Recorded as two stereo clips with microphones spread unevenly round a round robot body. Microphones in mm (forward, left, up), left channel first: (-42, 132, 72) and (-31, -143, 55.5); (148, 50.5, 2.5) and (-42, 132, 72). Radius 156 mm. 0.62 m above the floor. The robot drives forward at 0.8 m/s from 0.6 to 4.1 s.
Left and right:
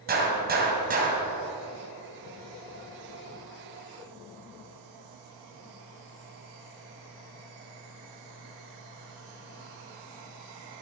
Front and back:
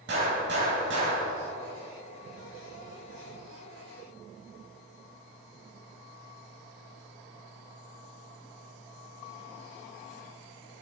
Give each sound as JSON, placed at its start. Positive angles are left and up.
{"t": 0.1, "sound": "a gunshot", "azimuth_deg": -145, "distance_m": 3.0}